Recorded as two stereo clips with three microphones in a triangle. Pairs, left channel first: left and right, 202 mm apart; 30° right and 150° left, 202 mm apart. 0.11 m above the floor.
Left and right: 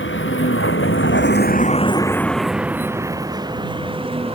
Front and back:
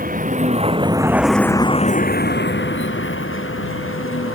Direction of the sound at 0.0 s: 105° left.